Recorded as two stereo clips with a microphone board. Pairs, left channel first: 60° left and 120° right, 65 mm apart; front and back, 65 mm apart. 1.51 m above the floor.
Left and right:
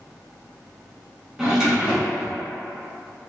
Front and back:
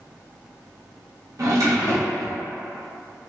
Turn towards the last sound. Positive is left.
turn(degrees=165)